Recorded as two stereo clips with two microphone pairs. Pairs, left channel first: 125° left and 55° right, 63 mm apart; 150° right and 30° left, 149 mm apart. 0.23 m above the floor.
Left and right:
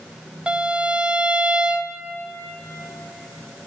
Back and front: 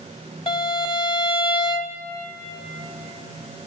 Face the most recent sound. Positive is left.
turn(degrees=-115)